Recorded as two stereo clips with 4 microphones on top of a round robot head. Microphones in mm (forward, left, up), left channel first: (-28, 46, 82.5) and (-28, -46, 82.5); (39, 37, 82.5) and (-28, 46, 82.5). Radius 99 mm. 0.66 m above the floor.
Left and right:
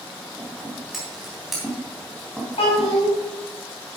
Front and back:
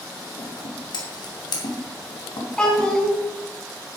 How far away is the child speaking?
About 4.5 m.